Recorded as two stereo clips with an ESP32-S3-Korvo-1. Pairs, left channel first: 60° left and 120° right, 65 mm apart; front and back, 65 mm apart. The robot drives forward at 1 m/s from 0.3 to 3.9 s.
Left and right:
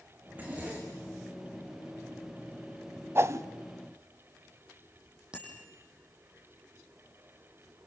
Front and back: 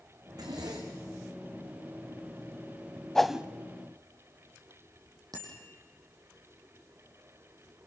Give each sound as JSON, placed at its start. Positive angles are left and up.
{"t": 0.3, "sound": "a zipper", "azimuth_deg": 175, "distance_m": 4.5}
{"t": 3.1, "sound": "a whoosh", "azimuth_deg": -80, "distance_m": 0.7}
{"t": 5.3, "sound": "a bicycle bell", "azimuth_deg": 165, "distance_m": 7.5}